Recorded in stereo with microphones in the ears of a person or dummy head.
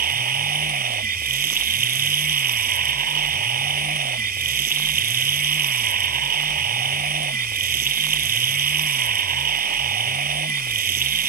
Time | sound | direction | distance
0.0 | running water | 45° right (ahead or behind) | ?